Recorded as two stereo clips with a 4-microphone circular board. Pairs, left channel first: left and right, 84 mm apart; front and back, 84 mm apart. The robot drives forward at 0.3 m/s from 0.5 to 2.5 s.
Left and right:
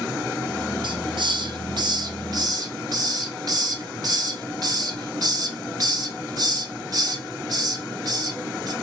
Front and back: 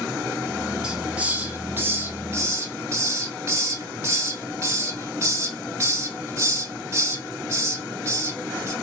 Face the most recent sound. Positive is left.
turn(degrees=-125)